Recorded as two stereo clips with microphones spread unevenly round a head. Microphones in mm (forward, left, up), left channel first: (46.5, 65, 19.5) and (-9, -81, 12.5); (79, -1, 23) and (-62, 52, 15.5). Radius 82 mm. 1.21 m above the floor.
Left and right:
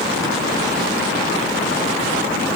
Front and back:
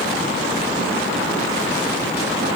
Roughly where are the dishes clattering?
No dishes clattering in this recording.